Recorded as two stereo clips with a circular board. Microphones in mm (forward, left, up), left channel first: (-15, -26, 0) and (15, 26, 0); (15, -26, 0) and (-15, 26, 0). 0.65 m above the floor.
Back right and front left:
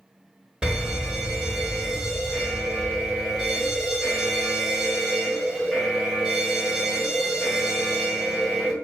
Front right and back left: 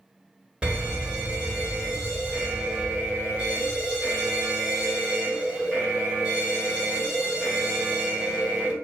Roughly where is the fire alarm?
Left.